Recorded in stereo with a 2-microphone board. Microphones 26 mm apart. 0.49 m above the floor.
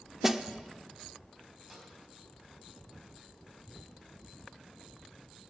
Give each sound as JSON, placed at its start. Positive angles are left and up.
{"t": 0.2, "sound": "a snare drum", "side_deg": -15, "distance_m": 0.6}
{"t": 1.7, "sound": "a snare drum", "side_deg": -10, "distance_m": 3.0}